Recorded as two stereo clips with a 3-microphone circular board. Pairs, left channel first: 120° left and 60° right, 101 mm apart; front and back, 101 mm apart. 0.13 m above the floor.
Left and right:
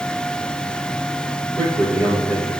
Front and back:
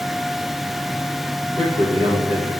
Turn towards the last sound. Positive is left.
turn(degrees=-165)